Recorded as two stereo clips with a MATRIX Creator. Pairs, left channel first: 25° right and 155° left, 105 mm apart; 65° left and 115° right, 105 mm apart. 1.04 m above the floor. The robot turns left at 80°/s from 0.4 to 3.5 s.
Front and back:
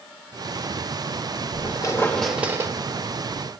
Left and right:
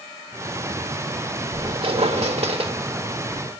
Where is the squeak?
55° right, 0.8 m; by 2.7 s 150° right, 0.8 m.